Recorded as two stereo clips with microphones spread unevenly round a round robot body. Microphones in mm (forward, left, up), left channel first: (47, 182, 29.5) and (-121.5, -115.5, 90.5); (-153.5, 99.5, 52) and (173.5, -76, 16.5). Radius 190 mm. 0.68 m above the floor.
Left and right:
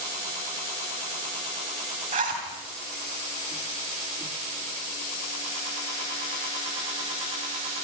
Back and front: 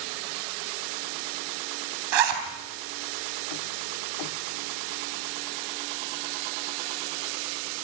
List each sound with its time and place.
2.1 s a zipper: 50° right, 3.5 m